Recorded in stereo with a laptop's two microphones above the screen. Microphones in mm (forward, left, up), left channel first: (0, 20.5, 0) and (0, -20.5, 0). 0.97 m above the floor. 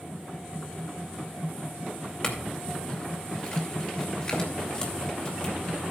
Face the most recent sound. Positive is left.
turn(degrees=25)  # may be behind; listen again after turning